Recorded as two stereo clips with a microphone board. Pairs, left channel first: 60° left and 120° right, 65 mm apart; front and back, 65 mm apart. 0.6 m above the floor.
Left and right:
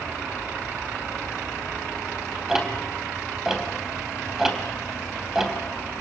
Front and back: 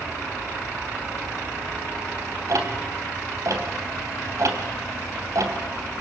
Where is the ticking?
160° left, 3 m.